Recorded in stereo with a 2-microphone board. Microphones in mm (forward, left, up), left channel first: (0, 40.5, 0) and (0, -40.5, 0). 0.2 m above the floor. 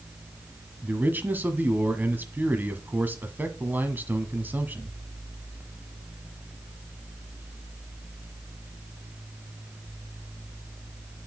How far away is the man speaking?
About 1.2 m.